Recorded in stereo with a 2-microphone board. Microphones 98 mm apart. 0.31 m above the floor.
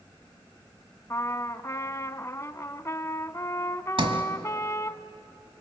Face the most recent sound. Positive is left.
turn(degrees=-65)  # may be behind; listen again after turning